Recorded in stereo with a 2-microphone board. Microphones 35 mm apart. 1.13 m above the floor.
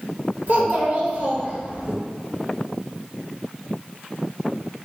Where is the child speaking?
55° right (ahead or behind), 1.1 m.